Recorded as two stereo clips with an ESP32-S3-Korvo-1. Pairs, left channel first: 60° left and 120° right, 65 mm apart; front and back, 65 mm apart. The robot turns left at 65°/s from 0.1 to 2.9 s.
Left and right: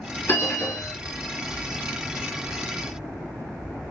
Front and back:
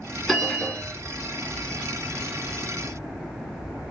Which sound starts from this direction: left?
A bell, at 0.3 s.